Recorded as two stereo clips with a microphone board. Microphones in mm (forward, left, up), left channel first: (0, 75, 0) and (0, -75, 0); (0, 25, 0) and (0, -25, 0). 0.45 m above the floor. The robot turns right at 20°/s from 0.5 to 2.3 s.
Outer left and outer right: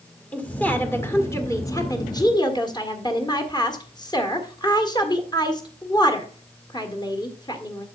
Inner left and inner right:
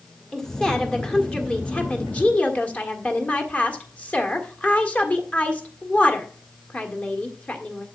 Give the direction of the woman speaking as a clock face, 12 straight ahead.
11 o'clock.